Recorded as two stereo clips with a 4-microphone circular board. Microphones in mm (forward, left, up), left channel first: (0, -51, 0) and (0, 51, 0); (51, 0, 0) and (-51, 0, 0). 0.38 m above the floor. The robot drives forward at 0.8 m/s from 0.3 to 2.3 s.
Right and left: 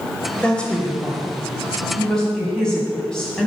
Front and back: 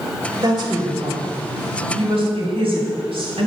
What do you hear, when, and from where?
0.4 s a woman speaking: 165° right, 1.8 m; by 3.5 s 175° right, 3 m